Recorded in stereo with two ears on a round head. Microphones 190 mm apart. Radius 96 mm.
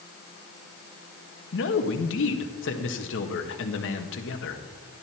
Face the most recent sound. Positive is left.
turn(degrees=65)  # may be behind; listen again after turning